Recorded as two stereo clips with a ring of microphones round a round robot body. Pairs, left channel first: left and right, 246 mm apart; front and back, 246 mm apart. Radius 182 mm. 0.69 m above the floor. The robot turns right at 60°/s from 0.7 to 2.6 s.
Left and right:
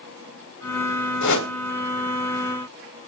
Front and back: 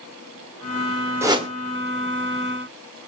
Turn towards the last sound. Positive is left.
turn(degrees=-175)